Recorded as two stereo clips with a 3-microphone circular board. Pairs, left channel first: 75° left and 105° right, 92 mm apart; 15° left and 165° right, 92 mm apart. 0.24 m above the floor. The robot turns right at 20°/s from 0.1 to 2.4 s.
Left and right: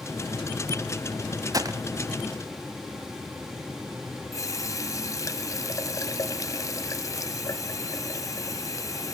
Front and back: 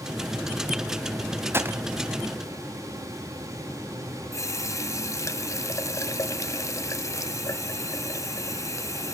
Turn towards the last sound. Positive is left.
turn(degrees=45)